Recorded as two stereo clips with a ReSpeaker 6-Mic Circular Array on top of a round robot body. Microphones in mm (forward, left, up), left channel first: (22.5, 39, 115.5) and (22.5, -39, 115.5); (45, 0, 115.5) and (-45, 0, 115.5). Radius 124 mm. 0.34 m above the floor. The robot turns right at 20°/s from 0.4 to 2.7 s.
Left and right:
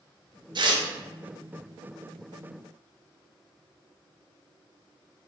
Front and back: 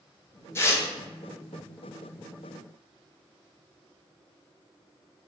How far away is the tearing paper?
About 0.6 m.